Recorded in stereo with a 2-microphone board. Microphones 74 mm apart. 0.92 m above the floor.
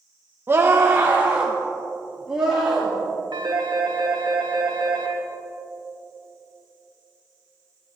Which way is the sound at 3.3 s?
75° right (ahead or behind).